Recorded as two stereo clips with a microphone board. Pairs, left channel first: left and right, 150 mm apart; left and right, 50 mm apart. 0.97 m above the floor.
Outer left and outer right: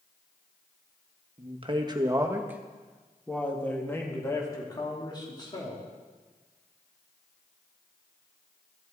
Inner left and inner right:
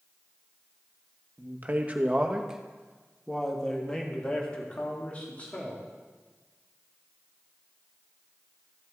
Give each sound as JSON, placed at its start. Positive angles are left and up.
{"t": 1.4, "sound": "a man speaking", "side_deg": -45, "distance_m": 1.1}